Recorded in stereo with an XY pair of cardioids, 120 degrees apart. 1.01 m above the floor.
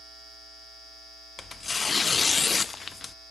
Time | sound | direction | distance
1.4 | tearing paper | 25° left | 0.5 m